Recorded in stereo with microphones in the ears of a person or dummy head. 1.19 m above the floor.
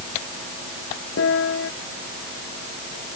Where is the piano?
75° left (ahead or behind).